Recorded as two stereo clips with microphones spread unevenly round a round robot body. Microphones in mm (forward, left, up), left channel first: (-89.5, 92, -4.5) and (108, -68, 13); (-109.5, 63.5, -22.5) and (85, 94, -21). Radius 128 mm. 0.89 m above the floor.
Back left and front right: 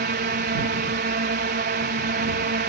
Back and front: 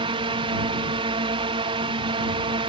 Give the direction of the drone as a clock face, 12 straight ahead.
1 o'clock.